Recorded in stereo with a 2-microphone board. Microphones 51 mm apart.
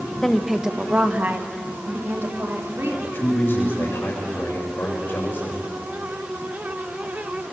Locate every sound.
0.2 s a woman speaking: 10° left (ahead or behind), 1.2 m; by 2.9 s 55° right (ahead or behind), 4.5 m
3.0 s a man speaking: 45° left (ahead or behind), 8 m